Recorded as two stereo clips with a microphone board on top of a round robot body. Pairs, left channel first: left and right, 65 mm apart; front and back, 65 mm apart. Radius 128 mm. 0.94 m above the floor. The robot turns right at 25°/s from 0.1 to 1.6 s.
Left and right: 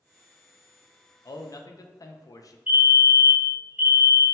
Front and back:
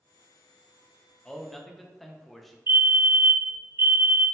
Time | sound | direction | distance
1.2 | a man speaking | 80° left | 0.6 m
2.7 | a fire alarm | 155° right | 1.5 m